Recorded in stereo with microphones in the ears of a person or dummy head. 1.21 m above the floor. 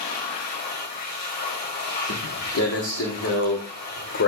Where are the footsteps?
70° left (ahead or behind), 6.5 m; by 4.3 s 60° left (ahead or behind), 5 m.